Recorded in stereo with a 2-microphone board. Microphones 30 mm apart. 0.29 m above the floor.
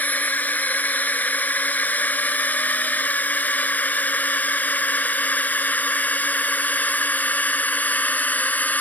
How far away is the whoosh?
No whoosh in this recording.